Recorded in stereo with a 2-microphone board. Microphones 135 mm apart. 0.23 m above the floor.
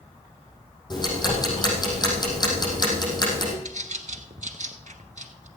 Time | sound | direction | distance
0.9 | ticking | 30° left (ahead or behind) | 5 m
3.6 | a bird | 75° right (ahead or behind) | 1.0 m